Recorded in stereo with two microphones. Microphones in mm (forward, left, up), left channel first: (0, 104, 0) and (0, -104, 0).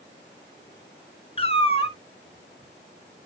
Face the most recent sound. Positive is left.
turn(degrees=30)  # may be behind; listen again after turning